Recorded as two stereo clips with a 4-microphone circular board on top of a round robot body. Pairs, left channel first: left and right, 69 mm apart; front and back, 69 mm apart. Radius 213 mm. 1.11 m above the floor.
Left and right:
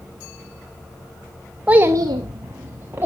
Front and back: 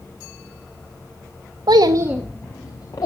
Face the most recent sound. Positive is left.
turn(degrees=-30)